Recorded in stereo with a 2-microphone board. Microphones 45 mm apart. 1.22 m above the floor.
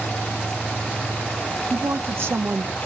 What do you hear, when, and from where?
1.7 s a woman speaking: 55° right (ahead or behind), 1.4 m